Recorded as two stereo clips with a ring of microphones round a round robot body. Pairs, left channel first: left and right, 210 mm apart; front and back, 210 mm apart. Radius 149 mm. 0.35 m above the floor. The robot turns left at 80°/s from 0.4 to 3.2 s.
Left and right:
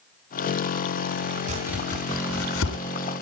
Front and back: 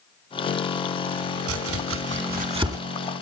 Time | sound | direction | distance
1.5 | chopping | 155° right | 2.5 m